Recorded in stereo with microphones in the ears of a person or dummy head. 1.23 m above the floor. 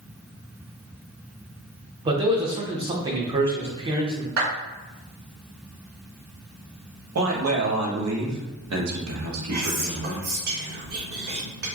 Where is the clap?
70° right (ahead or behind), 1.9 m.